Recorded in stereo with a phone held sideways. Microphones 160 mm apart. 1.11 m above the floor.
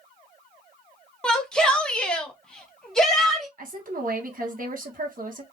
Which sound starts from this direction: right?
A woman speaking, at 3.6 s.